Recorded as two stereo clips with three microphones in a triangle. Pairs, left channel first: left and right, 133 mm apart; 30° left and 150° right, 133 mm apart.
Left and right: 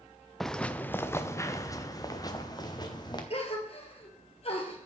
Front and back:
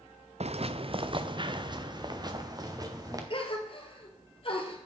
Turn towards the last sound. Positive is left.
turn(degrees=65)